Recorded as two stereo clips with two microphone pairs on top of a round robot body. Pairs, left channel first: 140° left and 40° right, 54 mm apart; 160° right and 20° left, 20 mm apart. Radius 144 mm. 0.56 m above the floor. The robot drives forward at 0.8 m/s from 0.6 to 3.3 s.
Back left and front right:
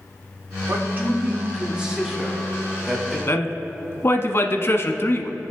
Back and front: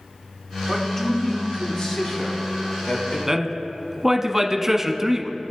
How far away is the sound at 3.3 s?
About 1.0 m.